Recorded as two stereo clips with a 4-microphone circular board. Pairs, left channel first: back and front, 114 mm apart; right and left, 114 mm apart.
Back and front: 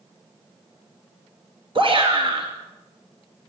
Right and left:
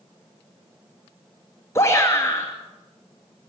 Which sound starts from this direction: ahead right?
A shout, at 1.8 s.